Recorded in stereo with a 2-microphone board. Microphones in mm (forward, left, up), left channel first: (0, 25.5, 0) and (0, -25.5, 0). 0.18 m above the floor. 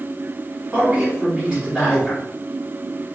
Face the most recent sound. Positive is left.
turn(degrees=-20)  # may be behind; listen again after turning